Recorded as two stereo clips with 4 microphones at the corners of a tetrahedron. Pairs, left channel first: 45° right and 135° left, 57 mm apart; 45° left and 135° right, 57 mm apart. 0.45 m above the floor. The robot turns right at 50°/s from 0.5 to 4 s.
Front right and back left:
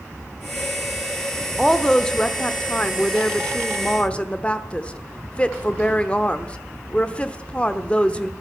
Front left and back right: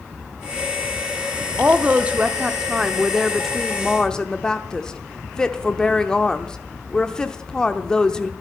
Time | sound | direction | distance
1.6 | a woman speaking | 135° right | 0.9 m